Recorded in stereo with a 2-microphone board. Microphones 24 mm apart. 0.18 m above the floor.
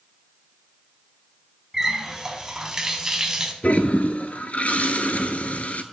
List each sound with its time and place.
1.7 s a running tap: 20° right (ahead or behind), 0.8 m
3.6 s a toilet flushing: 65° left (ahead or behind), 0.5 m